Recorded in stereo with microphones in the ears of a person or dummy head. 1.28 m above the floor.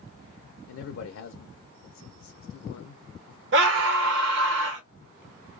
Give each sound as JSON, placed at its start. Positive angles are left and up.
{"t": 0.7, "sound": "a man speaking", "side_deg": 75, "distance_m": 0.6}
{"t": 3.5, "sound": "a scream", "side_deg": -65, "distance_m": 1.1}